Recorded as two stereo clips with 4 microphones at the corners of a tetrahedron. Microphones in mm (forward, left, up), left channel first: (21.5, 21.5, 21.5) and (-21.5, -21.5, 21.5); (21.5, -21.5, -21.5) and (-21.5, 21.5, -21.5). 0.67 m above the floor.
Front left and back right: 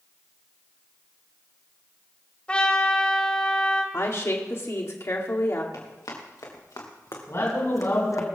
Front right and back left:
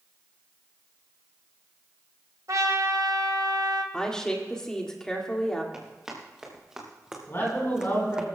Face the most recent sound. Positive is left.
turn(degrees=0)